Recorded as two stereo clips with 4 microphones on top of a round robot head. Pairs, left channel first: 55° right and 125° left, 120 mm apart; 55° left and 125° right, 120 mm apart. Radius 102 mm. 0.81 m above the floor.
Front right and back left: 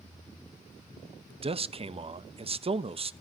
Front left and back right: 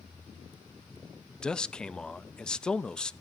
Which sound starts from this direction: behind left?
A man speaking, at 1.4 s.